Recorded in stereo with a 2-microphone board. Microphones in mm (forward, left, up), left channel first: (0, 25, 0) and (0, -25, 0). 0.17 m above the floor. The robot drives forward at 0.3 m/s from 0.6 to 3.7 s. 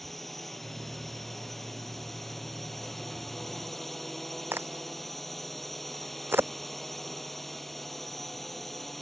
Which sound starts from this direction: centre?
A drone, at 0.0 s.